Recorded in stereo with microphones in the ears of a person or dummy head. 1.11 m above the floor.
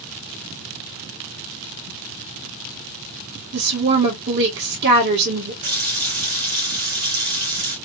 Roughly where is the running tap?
Right.